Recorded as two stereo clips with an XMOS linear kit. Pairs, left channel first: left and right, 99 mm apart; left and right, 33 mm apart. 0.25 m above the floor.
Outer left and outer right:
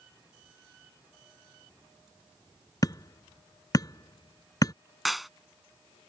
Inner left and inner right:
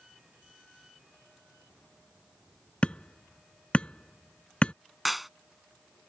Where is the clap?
Centre (ahead or behind).